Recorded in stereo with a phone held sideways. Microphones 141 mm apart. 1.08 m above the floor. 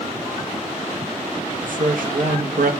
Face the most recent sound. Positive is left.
turn(degrees=-75)  # may be behind; listen again after turning